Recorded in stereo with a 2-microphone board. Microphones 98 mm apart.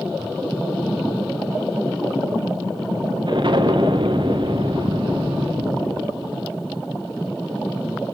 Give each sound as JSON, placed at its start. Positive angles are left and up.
{"t": 3.3, "sound": "an explosion", "side_deg": -55, "distance_m": 1.5}